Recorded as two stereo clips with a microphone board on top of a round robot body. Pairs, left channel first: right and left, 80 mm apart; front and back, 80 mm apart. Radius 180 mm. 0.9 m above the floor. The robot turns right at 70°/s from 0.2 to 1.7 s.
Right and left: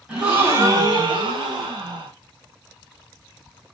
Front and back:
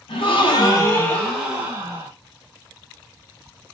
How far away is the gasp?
About 2.5 m.